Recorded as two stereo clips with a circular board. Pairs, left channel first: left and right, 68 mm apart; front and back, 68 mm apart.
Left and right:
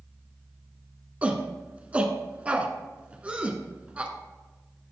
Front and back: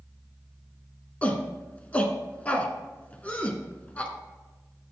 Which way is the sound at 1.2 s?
45° right.